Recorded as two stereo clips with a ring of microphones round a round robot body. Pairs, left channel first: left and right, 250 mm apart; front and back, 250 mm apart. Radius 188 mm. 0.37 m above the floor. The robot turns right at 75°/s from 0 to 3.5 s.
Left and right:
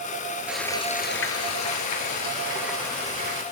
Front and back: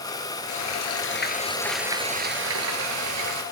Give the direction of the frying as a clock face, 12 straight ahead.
12 o'clock.